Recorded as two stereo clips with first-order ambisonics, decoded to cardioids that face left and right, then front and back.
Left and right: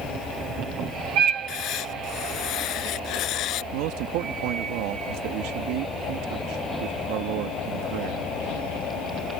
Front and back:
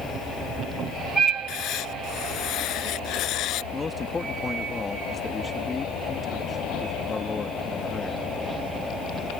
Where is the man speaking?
75° right.